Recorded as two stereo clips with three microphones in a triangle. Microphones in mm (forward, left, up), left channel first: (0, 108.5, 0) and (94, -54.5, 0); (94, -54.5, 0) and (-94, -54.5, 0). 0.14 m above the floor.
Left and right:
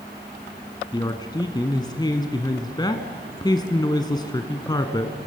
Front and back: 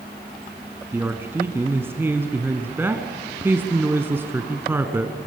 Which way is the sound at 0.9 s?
125° left.